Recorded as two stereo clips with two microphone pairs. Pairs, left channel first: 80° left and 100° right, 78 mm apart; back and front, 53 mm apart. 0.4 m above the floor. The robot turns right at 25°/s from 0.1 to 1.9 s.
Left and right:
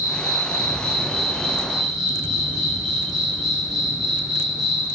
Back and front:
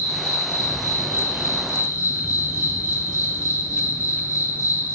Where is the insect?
130° left, 1.3 m; by 5.0 s 175° left, 1.3 m.